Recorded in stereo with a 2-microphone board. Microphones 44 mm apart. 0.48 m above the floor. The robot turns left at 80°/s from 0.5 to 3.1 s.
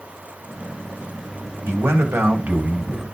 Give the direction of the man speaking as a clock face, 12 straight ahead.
2 o'clock.